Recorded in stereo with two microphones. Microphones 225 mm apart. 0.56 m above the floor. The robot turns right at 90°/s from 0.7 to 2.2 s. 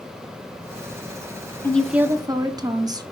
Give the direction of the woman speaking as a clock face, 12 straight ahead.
7 o'clock.